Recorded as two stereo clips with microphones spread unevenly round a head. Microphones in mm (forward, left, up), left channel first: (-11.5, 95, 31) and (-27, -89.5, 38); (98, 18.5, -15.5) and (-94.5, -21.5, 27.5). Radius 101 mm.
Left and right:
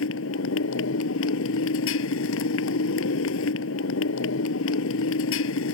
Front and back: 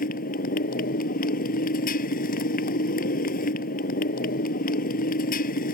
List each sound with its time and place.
0.0 s a motorcycle: 60° left